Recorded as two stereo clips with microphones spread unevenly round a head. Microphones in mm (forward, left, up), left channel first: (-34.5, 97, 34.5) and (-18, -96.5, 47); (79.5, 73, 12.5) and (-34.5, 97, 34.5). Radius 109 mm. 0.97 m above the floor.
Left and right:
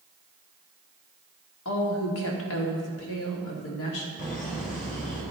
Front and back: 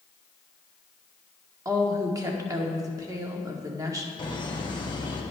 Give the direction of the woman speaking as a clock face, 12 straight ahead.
9 o'clock.